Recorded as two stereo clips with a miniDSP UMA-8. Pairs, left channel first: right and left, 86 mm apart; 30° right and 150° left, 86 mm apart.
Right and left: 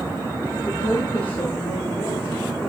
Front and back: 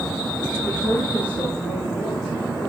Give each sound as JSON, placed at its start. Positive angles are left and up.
{"t": 0.7, "sound": "a woman speaking", "azimuth_deg": -105, "distance_m": 4.0}